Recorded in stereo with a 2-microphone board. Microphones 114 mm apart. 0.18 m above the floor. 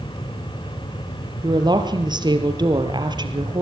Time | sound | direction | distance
1.4 | a woman speaking | 40° right (ahead or behind) | 3.5 m